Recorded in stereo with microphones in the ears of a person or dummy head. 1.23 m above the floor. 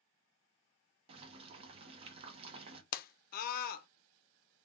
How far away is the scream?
About 0.6 m.